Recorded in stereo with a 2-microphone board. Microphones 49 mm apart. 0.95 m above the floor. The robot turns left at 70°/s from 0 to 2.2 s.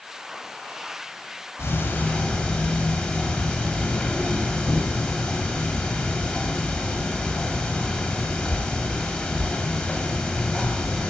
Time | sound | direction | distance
1.6 | ticking | 70° left | 1.5 m